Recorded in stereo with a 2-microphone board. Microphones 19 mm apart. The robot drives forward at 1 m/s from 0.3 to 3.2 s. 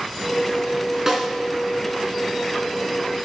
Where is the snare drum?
25° right (ahead or behind), 1.8 m; by 1.2 s 20° right (ahead or behind), 2.0 m.